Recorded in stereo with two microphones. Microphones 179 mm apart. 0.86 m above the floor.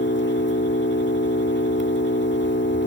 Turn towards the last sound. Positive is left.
turn(degrees=90)